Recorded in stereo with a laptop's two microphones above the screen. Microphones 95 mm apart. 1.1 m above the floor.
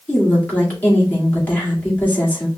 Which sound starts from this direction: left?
A woman speaking, at 0.1 s.